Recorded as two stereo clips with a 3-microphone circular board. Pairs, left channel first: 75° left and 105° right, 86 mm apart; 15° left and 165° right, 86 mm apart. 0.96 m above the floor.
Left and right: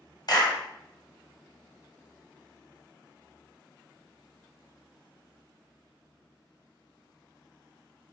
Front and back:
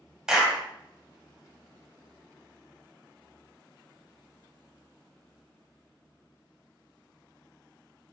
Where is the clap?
110° left, 1.0 m.